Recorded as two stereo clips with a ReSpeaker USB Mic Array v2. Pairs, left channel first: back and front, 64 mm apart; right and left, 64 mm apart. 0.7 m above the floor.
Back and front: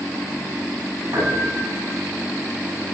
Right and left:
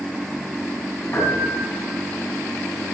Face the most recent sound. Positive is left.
turn(degrees=-40)